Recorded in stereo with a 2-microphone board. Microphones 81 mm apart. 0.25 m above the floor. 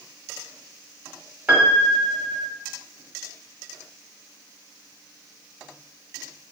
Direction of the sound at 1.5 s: 20° right (ahead or behind).